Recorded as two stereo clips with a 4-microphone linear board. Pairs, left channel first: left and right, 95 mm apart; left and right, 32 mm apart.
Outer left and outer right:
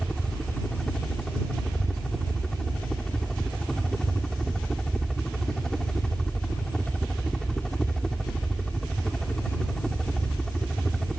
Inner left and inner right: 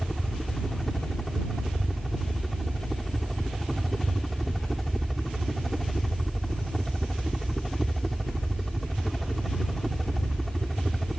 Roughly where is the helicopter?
Centre.